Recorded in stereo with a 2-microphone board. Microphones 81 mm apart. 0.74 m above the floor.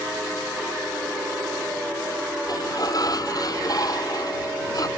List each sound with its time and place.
2.5 s a sliding door: 50° left (ahead or behind)